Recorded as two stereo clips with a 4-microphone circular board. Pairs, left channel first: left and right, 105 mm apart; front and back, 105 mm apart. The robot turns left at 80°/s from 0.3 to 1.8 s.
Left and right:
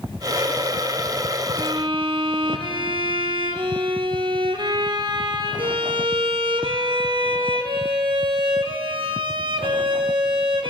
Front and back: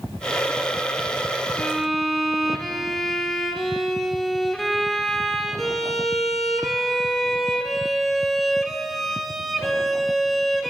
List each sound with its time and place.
1.6 s a violin: 70° right, 0.7 m; by 10.7 s 90° right, 0.7 m